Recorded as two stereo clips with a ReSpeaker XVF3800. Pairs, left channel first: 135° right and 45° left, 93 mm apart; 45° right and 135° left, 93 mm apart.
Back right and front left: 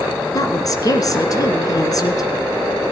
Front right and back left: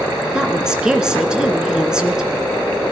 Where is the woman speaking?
145° right, 1.8 m.